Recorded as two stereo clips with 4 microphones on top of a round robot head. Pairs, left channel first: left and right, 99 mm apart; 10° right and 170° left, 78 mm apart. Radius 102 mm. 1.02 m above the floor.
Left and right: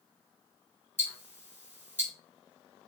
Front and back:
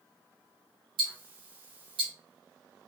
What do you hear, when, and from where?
1.0 s ticking: 155° right, 1.8 m